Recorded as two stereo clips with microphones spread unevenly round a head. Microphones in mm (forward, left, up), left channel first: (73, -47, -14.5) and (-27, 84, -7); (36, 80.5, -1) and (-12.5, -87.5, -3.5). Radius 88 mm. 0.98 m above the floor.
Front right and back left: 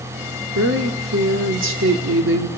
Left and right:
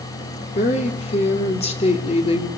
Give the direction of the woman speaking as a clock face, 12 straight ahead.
8 o'clock.